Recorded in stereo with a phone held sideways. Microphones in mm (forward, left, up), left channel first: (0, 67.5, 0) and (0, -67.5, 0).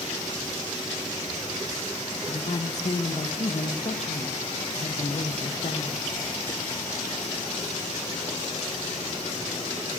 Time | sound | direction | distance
2.3 | a woman speaking | 55° left (ahead or behind) | 1.2 m